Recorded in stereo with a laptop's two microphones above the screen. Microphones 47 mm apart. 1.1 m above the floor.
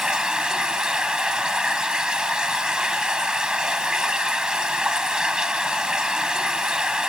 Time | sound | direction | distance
0.0 | running water | 15° right (ahead or behind) | ?